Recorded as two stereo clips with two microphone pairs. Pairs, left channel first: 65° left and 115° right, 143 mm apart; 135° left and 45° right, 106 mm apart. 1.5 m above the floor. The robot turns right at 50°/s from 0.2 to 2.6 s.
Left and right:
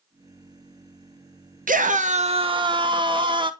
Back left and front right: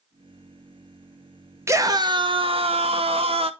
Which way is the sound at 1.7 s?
110° right.